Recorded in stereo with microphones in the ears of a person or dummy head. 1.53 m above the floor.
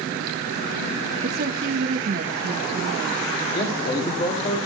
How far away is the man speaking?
About 3.5 m.